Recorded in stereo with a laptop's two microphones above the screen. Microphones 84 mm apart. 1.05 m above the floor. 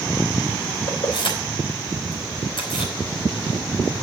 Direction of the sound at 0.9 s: 80° left.